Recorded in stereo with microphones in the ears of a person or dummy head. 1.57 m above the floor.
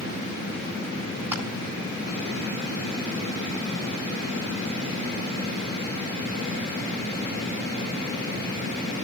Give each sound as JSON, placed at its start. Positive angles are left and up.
{"t": 1.3, "sound": "crushing", "side_deg": -15, "distance_m": 8.5}